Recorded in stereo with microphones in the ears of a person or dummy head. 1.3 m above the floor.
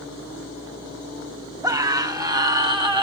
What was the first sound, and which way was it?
A scream, 15° right (ahead or behind).